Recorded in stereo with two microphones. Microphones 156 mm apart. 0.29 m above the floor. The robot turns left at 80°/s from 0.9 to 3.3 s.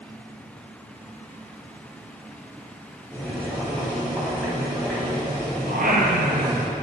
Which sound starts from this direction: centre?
Boiling, at 3.1 s.